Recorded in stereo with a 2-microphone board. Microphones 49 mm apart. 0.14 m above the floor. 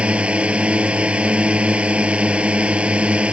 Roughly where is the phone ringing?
No phone ringing in this recording.